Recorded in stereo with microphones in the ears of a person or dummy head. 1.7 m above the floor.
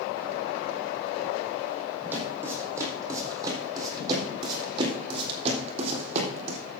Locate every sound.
2.1 s footsteps: 15° right (ahead or behind), 4.5 m; by 6.6 s 45° right (ahead or behind), 3.5 m